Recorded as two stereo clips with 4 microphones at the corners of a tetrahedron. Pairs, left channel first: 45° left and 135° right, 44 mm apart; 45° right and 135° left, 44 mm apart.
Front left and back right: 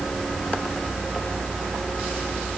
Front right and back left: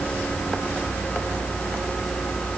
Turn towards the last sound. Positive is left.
No sound to turn to.